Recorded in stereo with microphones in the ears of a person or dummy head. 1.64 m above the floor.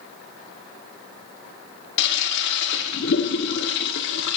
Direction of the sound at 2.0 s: 70° left (ahead or behind).